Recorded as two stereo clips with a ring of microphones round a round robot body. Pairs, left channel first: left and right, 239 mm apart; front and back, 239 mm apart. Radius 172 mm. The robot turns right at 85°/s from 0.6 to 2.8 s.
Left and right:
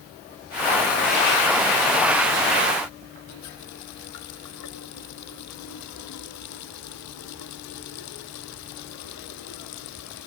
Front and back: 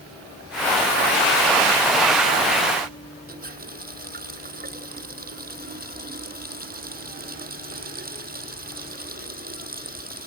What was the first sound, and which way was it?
A running tap, 130° left.